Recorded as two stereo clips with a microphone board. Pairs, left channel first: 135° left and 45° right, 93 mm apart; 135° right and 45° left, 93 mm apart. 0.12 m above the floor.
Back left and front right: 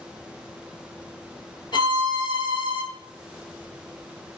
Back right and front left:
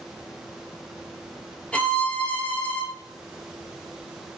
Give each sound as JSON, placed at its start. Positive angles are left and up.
{"t": 1.7, "sound": "a violin", "azimuth_deg": 150, "distance_m": 0.9}